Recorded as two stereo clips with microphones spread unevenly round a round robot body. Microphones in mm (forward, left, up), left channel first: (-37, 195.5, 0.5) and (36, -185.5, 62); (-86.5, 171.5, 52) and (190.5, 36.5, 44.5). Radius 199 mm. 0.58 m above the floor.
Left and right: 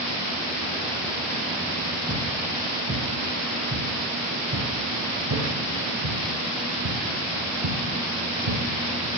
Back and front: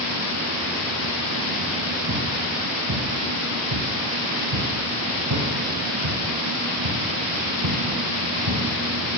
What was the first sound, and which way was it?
Footsteps, 5° right.